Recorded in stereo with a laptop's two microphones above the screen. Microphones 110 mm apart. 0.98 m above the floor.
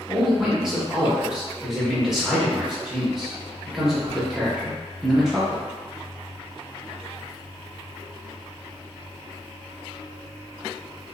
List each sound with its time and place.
0.1 s a man speaking: 5° right (ahead or behind), 1.1 m